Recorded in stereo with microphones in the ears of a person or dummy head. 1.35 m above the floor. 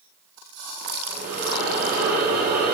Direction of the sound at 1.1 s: 35° right (ahead or behind).